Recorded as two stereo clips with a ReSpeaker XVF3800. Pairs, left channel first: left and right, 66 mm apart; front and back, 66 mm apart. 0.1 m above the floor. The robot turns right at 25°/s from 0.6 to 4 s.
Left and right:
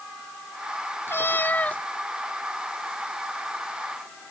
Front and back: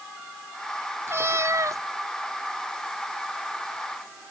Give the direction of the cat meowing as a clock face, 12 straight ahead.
7 o'clock.